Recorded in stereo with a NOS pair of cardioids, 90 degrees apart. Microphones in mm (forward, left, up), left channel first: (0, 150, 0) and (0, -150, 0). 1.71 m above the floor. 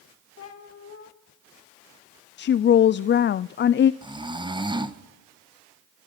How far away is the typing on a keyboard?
I don't hear typing on a keyboard.